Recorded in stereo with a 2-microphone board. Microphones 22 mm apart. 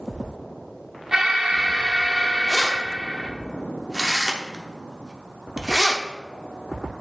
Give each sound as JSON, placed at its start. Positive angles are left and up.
{"t": 1.1, "sound": "an alarm", "side_deg": -30, "distance_m": 0.9}
{"t": 2.5, "sound": "keys jangling", "side_deg": -30, "distance_m": 0.7}